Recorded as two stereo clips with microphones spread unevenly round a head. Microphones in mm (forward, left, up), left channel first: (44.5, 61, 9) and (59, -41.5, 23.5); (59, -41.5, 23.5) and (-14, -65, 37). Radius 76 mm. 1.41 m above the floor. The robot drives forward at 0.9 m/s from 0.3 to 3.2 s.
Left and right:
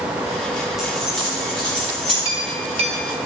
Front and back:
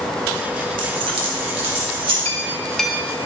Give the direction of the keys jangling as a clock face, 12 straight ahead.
6 o'clock.